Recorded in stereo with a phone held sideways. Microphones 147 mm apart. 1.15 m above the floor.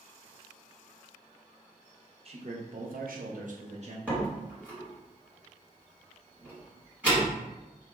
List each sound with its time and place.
2.2 s a man speaking: 45° right (ahead or behind), 0.7 m
4.1 s a door slam: 10° right (ahead or behind), 1.8 m